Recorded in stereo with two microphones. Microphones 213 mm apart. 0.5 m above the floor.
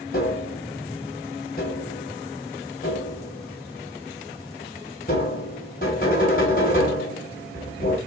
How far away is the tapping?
About 2 m.